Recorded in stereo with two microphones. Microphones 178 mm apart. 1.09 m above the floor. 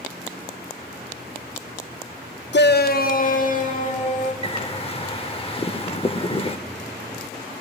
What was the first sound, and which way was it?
A shout, 80° left.